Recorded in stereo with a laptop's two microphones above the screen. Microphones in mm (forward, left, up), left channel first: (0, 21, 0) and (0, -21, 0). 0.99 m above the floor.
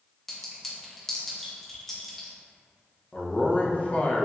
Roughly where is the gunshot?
No gunshot in this recording.